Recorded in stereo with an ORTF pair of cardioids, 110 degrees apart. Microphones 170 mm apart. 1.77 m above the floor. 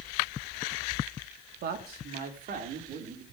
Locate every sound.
1.6 s a man speaking: 70° right, 3.5 m; by 3.2 s 55° right, 5.5 m